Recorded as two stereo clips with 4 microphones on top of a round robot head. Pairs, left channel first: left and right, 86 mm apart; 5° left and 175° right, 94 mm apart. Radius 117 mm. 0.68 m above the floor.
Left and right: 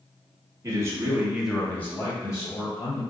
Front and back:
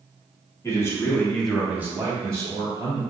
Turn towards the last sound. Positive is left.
turn(degrees=135)